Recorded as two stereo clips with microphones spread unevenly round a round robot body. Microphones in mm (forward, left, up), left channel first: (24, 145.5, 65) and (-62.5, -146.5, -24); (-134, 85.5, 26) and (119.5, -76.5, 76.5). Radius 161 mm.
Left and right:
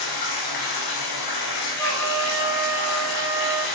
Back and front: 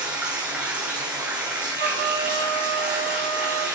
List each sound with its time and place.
0.0 s running water: 55° left, 3 m
1.8 s a trumpet: 150° right, 6.5 m